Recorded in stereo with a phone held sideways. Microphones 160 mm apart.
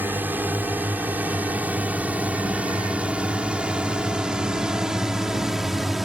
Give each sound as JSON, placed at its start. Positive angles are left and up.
{"t": 0.0, "sound": "a drone", "side_deg": -10}